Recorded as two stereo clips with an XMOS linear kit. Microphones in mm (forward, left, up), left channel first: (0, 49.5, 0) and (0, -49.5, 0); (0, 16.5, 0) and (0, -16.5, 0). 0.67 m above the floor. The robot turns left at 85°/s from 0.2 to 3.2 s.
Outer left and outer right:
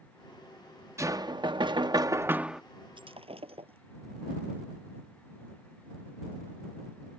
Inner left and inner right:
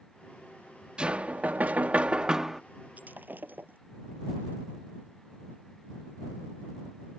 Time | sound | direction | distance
1.0 | knocking | 40° right | ?
3.0 | breaking glass | 55° right (ahead or behind) | ?